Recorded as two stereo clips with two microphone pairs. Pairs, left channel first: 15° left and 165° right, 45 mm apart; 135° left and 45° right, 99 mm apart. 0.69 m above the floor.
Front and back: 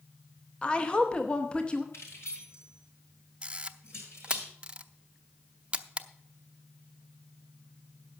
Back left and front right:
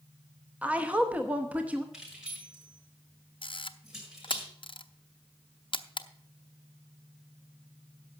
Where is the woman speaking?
10° left, 0.9 m.